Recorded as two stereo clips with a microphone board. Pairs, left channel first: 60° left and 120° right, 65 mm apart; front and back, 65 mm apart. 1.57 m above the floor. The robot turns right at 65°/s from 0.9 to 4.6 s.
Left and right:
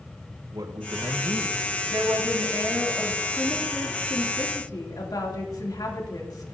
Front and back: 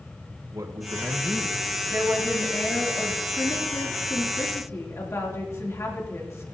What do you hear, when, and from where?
0.5 s a man speaking: 140° right, 1.4 m; by 1.6 s 95° right, 1.4 m
1.9 s a woman speaking: 130° right, 3 m; by 6.5 s 45° left, 3 m